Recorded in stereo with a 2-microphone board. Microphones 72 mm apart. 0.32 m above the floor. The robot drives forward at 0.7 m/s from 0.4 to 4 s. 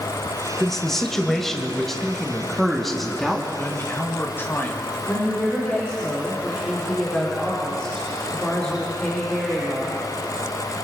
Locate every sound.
0.6 s a man speaking: 5° left (ahead or behind), 1.1 m; by 3.5 s centre (ahead or behind), 2.5 m
3.6 s a man speaking: 35° left (ahead or behind), 1.5 m
5.1 s a woman speaking: 15° left (ahead or behind), 3.5 m